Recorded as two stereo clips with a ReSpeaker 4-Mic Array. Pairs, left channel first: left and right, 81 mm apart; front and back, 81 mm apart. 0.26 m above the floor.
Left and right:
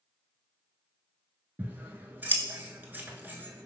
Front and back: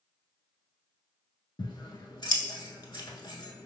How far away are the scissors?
About 0.6 m.